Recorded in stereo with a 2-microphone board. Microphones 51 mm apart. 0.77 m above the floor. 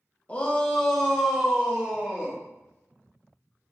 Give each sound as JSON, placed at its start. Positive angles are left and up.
{"t": 0.3, "sound": "a shout", "side_deg": 25, "distance_m": 0.7}